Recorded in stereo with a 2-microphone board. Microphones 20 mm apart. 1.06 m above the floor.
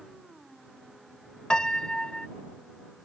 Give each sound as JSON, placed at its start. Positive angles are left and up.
{"t": 1.5, "sound": "a piano", "side_deg": 40}